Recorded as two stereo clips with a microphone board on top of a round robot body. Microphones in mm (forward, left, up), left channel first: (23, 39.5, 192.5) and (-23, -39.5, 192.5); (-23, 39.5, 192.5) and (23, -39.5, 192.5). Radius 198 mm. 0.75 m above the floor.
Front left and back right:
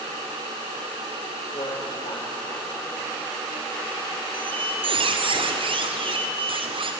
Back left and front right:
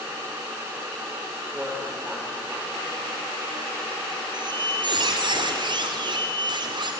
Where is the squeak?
95° right, 2.5 m.